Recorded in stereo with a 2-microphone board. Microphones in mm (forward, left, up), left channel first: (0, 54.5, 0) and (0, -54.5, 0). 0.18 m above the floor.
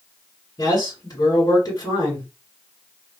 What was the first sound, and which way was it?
A man speaking, 35° left (ahead or behind).